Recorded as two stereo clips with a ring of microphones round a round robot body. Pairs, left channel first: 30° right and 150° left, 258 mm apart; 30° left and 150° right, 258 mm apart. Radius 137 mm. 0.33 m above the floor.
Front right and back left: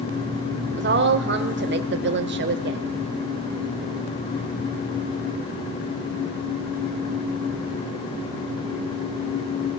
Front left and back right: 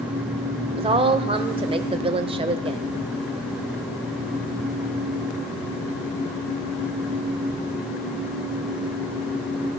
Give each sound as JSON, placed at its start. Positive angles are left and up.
{"t": 0.7, "sound": "a woman speaking", "azimuth_deg": 150, "distance_m": 1.2}